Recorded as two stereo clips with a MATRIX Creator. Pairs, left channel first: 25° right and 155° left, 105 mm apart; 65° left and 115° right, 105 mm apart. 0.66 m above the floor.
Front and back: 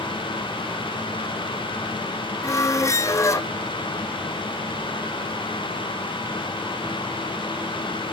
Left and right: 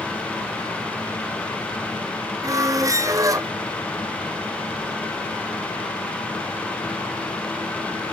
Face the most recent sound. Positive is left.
turn(degrees=-70)